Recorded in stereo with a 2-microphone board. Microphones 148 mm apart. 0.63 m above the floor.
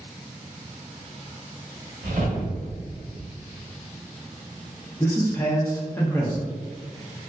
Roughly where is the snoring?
No snoring in this recording.